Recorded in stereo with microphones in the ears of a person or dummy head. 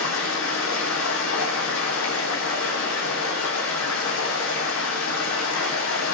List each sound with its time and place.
0.0 s running water: 70° left (ahead or behind), 1.0 m